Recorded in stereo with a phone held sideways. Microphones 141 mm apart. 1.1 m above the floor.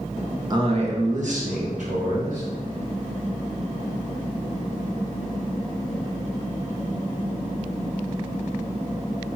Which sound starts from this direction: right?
A man speaking, at 0.5 s.